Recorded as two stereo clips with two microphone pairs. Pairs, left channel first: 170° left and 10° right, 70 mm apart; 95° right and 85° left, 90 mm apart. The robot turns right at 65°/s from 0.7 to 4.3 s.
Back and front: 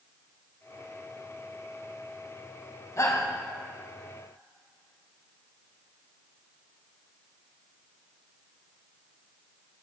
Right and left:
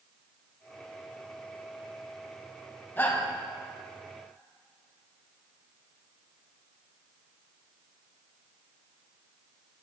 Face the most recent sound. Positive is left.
turn(degrees=-70)